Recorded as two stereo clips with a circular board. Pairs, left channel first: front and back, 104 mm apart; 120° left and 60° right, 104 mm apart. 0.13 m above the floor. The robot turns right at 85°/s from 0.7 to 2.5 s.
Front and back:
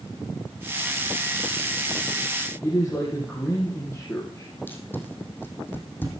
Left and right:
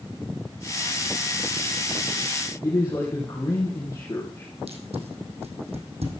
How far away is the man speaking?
About 4 m.